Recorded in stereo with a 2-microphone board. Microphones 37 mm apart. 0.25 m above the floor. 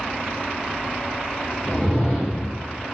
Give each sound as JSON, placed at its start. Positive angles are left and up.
{"t": 1.6, "sound": "a whoosh", "side_deg": 25, "distance_m": 6.5}